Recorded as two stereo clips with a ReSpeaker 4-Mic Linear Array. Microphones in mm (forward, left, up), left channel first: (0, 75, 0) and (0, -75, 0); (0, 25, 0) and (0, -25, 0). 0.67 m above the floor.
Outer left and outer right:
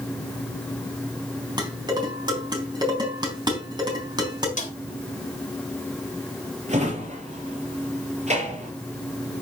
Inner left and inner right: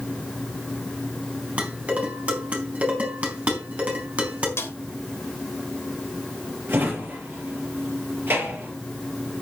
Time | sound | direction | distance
1.6 | dishes clattering | 30° right (ahead or behind) | 4 m
4.6 | a snare drum | 60° left (ahead or behind) | 3 m
6.7 | a drawer | 50° right (ahead or behind) | 6 m